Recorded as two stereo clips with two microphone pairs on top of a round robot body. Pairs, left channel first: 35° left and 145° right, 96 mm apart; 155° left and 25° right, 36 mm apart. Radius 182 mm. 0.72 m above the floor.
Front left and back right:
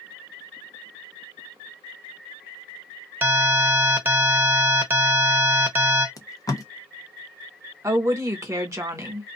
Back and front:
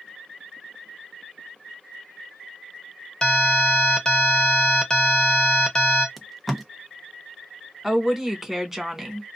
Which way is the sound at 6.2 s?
65° left.